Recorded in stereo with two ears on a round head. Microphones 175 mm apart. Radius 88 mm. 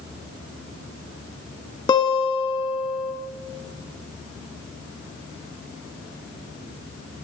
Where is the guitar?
20° left (ahead or behind), 0.7 m.